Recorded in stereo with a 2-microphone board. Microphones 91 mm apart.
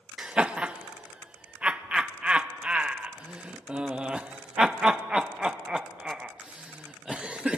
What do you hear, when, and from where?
0.2 s laughter: 10° right (ahead or behind), 0.5 m